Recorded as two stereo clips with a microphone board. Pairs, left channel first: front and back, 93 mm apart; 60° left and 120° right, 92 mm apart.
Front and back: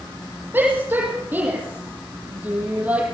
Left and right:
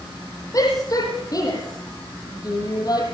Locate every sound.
0.5 s a shout: 110° left, 9 m; by 3.0 s 105° left, 7.5 m